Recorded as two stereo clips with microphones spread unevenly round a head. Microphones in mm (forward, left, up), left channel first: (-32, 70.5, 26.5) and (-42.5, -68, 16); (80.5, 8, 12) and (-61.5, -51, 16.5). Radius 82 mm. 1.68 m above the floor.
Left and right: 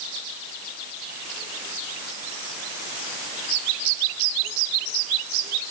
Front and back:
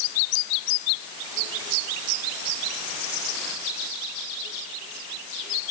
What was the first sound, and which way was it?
Only background noise.